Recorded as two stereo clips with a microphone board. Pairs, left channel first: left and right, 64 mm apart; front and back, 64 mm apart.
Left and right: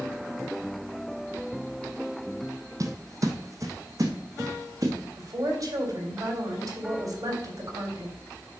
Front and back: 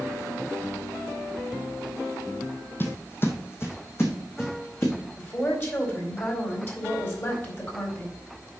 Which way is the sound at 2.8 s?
55° right.